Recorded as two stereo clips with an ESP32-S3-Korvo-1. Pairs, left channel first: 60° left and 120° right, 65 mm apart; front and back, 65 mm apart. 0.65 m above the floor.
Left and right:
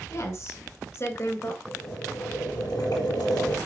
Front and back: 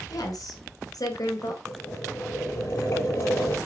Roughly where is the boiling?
Ahead left.